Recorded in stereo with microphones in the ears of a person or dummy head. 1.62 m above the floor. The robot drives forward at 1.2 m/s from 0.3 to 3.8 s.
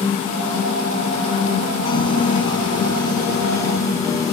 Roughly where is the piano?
Left.